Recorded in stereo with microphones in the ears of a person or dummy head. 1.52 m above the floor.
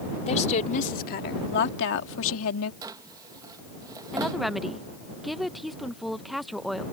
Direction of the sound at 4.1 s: Centre (ahead or behind).